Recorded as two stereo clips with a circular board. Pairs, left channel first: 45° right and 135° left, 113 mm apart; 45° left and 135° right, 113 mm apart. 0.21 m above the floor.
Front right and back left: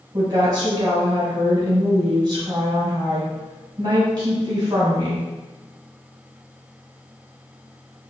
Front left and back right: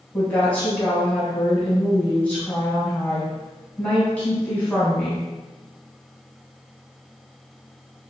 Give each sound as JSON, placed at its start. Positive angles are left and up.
{"t": 0.1, "sound": "a woman speaking", "azimuth_deg": 115, "distance_m": 1.6}